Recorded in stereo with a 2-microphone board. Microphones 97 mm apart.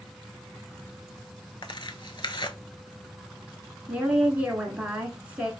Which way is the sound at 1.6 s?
55° left (ahead or behind).